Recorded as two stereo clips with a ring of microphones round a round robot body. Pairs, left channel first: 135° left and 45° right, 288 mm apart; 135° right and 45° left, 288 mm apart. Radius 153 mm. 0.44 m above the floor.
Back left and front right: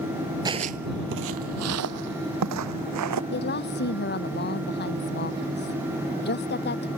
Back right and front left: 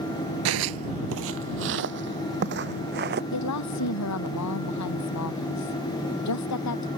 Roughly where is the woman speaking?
Behind.